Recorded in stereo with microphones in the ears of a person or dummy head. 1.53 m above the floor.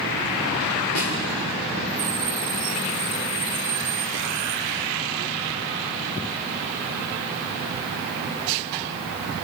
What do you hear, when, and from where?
0.9 s a snare drum: 75° left (ahead or behind), 3.5 m